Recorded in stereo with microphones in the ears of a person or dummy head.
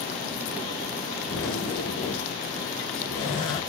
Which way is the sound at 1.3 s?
30° left (ahead or behind).